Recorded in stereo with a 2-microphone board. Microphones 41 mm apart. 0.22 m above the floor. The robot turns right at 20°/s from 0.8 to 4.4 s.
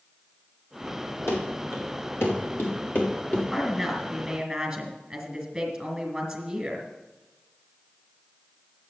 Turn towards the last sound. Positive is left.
turn(degrees=-15)  # may be behind; listen again after turning